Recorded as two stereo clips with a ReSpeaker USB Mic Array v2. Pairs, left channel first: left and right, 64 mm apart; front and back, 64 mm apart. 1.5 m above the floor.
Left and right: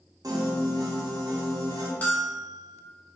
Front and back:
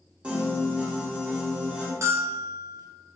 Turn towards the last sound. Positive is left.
turn(degrees=150)